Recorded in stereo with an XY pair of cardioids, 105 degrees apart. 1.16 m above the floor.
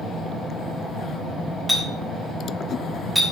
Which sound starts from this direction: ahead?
A clink, at 1.7 s.